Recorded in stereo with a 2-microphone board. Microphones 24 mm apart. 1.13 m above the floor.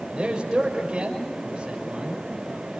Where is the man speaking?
35° right (ahead or behind), 6 m.